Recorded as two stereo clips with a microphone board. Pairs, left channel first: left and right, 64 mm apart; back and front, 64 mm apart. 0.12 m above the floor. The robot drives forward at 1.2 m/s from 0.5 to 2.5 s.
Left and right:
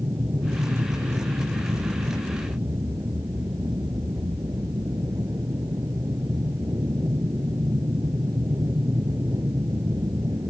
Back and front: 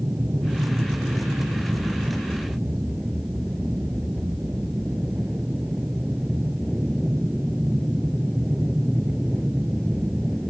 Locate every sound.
0.0 s an aircraft: 65° right; by 10.5 s 95° right